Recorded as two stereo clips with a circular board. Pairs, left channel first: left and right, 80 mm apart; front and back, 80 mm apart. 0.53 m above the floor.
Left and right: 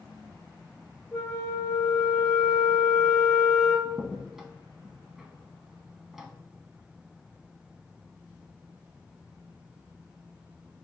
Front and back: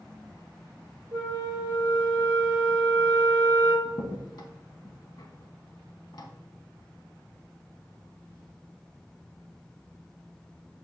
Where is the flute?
125° left, 1.7 m.